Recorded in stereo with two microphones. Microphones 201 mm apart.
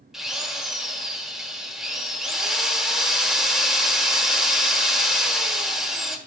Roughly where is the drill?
Centre.